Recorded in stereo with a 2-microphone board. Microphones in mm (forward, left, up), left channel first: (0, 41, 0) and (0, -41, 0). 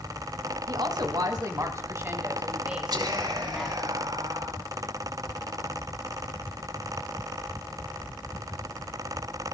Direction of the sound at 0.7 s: 60° right (ahead or behind).